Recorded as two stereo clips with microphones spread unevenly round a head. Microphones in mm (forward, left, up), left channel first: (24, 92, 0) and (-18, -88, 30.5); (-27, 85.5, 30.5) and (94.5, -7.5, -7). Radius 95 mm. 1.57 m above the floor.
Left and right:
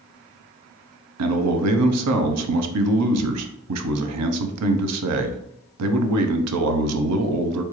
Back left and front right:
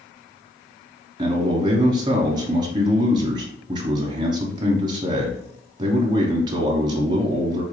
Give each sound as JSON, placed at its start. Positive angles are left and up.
{"t": 1.2, "sound": "a man speaking", "azimuth_deg": -105, "distance_m": 0.6}